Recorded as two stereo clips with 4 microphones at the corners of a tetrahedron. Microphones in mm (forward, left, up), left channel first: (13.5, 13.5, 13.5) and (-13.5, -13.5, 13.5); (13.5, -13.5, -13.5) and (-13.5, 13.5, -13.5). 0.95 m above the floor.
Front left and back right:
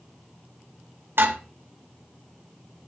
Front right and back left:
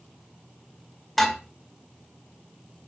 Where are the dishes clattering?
130° right, 2.5 m.